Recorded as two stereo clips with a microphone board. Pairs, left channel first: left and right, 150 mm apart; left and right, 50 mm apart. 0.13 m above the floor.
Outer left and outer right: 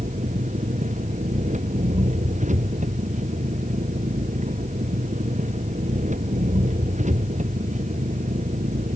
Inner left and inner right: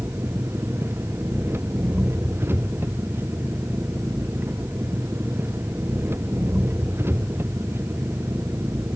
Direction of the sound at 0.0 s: 55° right (ahead or behind).